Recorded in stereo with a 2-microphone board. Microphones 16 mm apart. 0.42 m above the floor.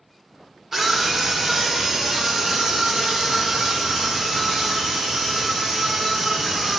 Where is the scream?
20° right (ahead or behind), 1.4 m; by 6.8 s 40° right (ahead or behind), 5.5 m.